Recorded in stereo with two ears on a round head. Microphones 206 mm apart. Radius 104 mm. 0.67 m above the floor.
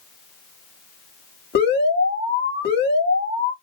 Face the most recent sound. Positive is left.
turn(degrees=50)  # may be behind; listen again after turning